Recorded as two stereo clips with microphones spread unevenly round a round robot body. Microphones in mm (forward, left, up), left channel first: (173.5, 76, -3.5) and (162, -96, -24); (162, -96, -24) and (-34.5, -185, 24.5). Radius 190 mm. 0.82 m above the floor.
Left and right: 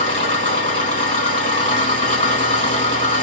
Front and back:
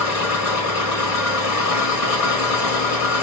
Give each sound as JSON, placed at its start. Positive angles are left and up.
{"t": 0.0, "sound": "an engine running", "azimuth_deg": 40, "distance_m": 3.0}